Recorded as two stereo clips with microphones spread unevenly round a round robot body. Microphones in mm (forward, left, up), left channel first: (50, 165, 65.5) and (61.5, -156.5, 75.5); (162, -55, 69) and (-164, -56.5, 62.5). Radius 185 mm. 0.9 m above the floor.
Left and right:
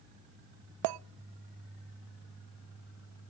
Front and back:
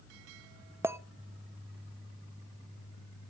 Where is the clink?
95° right, 0.5 m.